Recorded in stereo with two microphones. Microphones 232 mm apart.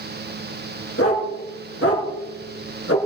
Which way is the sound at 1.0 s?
85° left.